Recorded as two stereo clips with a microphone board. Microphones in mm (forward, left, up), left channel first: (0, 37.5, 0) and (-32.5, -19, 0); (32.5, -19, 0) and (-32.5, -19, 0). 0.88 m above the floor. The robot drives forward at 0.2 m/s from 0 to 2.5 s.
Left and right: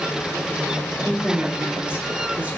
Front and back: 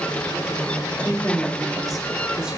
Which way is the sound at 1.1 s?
50° right.